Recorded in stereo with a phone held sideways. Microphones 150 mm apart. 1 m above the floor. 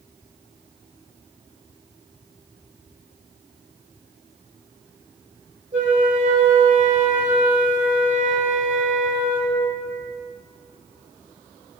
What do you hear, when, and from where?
5.7 s a flute: 55° right (ahead or behind), 2.5 m